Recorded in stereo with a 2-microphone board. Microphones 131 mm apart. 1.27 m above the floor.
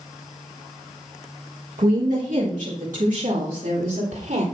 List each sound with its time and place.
1.8 s a woman speaking: 70° right (ahead or behind), 1.4 m; by 4.4 s 80° right, 3 m